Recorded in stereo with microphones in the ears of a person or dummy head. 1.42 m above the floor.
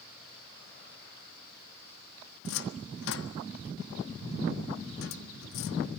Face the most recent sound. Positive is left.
turn(degrees=60)  # may be behind; listen again after turning